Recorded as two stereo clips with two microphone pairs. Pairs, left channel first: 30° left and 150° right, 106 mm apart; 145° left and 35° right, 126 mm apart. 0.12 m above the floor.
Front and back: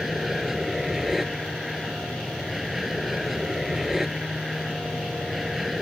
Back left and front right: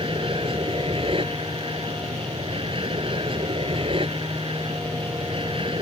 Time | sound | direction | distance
0.0 | an aircraft | 60° right | ?